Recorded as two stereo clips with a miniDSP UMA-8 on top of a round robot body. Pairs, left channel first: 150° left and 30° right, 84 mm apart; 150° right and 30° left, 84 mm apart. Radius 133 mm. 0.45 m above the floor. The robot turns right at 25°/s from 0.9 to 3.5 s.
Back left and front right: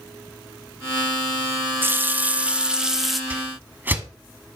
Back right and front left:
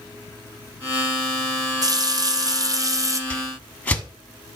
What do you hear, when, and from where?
1.8 s a running tap: 25° left, 0.7 m; by 3.2 s 60° left, 0.7 m
3.3 s a whoosh: 90° right, 1.3 m; by 4.0 s 85° right, 1.3 m